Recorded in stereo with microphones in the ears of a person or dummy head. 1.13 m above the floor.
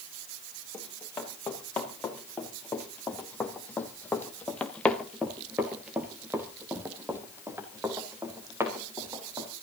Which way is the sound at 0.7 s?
10° left (ahead or behind).